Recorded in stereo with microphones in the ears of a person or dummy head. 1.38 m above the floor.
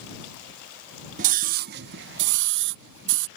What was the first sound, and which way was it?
A scream, 40° right (ahead or behind).